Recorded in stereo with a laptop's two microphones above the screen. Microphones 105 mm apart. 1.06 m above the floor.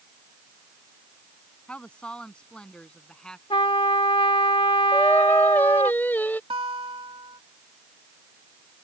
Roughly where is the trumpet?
Left.